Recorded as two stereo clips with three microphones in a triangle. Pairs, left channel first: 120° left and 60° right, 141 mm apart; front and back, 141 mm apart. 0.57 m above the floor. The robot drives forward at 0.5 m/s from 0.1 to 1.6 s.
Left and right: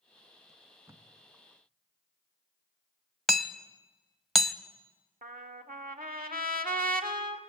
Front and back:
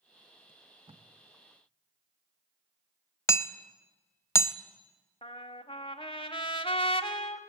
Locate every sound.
0.5 s tape being pulled: 125° right, 1.4 m; by 1.1 s 135° right, 1.6 m
3.3 s hammering: 30° left, 0.7 m
5.2 s a trumpet: 55° right, 1.2 m